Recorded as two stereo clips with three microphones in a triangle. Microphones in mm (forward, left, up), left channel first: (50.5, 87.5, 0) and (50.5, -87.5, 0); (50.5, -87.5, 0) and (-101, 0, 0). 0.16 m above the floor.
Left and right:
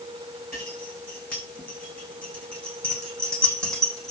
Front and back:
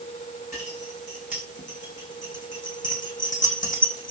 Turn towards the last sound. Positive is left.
turn(degrees=0)